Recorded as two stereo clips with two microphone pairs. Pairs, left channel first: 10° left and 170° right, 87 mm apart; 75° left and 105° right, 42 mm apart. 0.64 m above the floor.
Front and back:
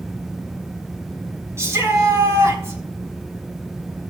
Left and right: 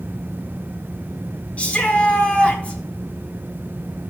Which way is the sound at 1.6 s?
135° left.